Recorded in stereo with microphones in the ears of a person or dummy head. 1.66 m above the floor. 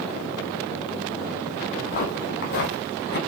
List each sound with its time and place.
1.7 s footsteps: 45° left (ahead or behind), 2.5 m; by 3.2 s 60° left (ahead or behind), 4.5 m